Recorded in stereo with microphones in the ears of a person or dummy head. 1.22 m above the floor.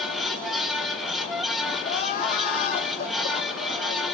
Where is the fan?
Centre (ahead or behind), 0.9 m.